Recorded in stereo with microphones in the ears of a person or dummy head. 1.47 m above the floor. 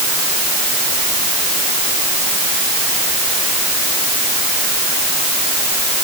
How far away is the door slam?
I don't hear a door slam.